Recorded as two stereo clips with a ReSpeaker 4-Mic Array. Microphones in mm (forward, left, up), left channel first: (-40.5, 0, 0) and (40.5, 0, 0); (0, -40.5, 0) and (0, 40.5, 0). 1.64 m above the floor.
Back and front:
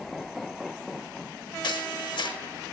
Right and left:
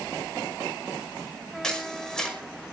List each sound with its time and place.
1.6 s a camera shutter: 175° right, 5.5 m